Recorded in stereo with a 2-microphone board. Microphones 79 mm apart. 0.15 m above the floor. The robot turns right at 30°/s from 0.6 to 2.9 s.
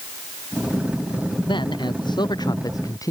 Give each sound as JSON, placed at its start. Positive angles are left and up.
{"t": 1.5, "sound": "a man speaking", "azimuth_deg": 90}